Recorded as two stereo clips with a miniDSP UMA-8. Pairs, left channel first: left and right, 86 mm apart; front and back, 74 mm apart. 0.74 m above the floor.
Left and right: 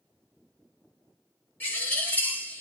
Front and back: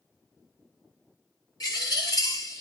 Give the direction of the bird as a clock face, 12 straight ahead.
11 o'clock.